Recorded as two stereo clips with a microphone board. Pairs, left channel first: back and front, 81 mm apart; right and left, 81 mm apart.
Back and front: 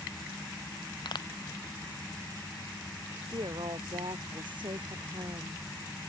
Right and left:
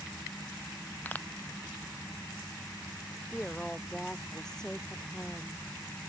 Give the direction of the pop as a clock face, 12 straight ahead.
5 o'clock.